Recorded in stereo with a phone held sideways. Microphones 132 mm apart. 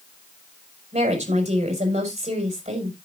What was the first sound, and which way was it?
A woman speaking, 65° right (ahead or behind).